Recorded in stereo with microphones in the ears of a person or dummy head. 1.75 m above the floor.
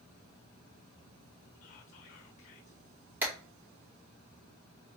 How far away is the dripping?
I don't hear dripping.